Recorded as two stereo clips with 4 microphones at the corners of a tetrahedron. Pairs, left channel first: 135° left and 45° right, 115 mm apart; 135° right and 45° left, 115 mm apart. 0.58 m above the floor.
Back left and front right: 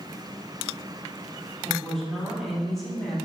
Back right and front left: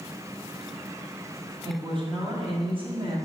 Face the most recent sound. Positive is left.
turn(degrees=45)